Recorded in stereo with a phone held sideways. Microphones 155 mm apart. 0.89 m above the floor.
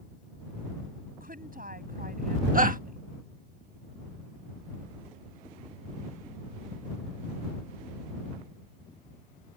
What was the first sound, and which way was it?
A woman speaking, 70° right (ahead or behind).